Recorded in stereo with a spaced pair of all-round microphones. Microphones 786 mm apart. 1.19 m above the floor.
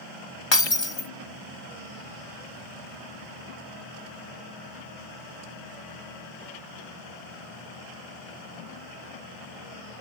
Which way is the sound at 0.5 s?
35° left (ahead or behind).